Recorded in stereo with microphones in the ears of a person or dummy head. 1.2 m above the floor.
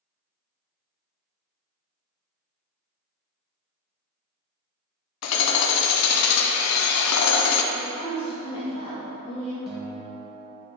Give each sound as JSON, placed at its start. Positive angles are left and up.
{"t": 5.2, "sound": "hammering", "side_deg": 80, "distance_m": 0.6}
{"t": 7.7, "sound": "a woman speaking", "side_deg": 25, "distance_m": 1.0}
{"t": 9.7, "sound": "a guitar", "side_deg": -5, "distance_m": 0.9}